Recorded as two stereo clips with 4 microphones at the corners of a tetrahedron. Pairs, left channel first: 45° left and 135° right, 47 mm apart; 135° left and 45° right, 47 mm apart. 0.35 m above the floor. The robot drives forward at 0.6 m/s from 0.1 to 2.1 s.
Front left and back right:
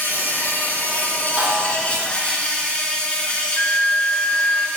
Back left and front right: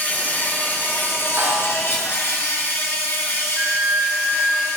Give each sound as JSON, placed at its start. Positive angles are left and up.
{"t": 0.0, "sound": "an insect", "azimuth_deg": 90, "distance_m": 2.5}
{"t": 1.4, "sound": "a snare drum", "azimuth_deg": -65, "distance_m": 3.0}
{"t": 3.6, "sound": "a flute", "azimuth_deg": 15, "distance_m": 1.0}